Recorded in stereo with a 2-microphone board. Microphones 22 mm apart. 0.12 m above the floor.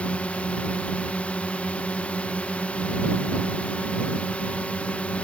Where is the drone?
75° left (ahead or behind).